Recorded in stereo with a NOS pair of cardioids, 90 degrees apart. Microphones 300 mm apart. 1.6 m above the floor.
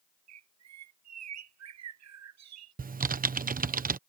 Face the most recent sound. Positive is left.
turn(degrees=-30)